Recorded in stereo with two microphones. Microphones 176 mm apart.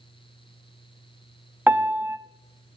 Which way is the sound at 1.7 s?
10° right (ahead or behind).